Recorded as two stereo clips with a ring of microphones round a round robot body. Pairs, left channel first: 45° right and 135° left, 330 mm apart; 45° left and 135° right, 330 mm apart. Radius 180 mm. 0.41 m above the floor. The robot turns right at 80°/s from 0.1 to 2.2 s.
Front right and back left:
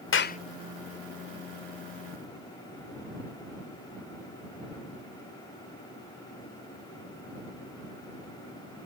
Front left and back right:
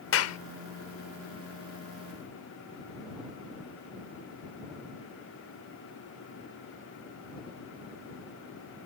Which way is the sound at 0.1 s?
Straight ahead.